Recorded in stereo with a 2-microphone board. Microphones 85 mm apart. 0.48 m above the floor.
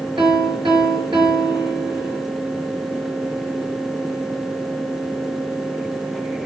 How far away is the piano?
About 5.5 m.